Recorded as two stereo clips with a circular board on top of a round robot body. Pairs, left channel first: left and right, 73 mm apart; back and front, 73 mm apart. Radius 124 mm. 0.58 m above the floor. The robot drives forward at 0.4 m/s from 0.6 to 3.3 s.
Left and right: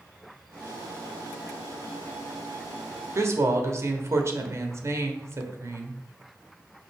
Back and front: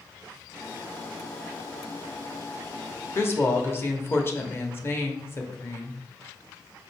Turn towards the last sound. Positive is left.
turn(degrees=-130)